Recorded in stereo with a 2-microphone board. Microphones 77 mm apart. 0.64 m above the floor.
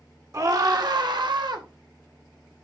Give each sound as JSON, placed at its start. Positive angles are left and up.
{"t": 0.3, "sound": "a scream", "side_deg": -45, "distance_m": 1.7}